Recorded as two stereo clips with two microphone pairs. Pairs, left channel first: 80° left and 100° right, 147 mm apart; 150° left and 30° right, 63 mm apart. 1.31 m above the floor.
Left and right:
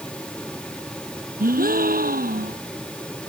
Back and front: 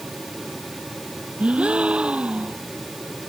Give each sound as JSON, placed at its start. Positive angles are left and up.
{"t": 1.4, "sound": "a gasp", "azimuth_deg": -105}